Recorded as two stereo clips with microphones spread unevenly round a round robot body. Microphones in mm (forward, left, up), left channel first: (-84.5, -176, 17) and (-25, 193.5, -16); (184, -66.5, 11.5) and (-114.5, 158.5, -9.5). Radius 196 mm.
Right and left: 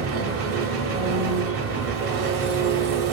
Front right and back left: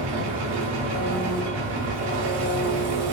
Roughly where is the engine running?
Behind left.